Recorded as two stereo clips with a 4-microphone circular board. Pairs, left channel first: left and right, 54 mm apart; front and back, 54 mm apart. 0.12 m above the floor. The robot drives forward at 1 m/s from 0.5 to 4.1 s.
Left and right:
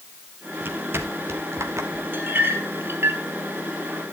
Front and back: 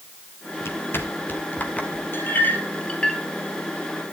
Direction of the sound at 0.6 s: 40° right.